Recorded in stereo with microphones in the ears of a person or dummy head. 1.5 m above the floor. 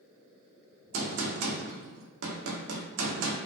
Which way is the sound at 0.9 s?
75° right (ahead or behind).